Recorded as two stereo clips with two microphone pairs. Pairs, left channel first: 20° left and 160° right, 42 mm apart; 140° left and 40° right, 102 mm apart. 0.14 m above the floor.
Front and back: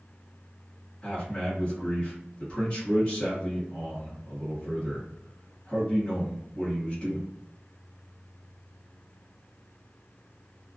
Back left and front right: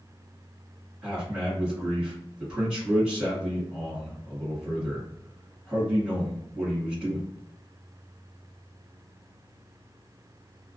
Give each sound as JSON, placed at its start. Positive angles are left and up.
{"t": 1.0, "sound": "a man speaking", "azimuth_deg": 30, "distance_m": 1.6}